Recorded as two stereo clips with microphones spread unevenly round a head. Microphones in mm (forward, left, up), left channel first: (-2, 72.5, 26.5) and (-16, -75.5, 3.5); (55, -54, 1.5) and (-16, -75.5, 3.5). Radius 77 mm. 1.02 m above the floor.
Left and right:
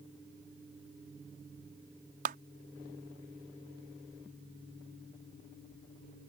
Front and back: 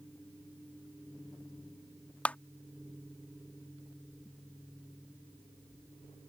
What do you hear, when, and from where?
2.2 s a clap: 55° right